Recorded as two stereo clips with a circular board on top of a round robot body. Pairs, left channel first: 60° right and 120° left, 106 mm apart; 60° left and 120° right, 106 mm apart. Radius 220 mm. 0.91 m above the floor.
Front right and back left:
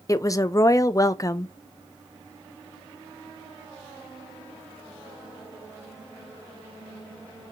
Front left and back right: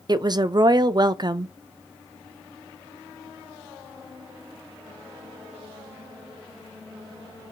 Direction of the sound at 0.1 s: 100° right.